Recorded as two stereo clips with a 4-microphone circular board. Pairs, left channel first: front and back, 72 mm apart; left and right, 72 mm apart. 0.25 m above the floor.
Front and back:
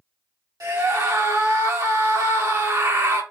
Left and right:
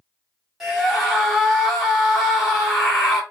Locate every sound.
0.6 s a scream: 175° right, 2.5 m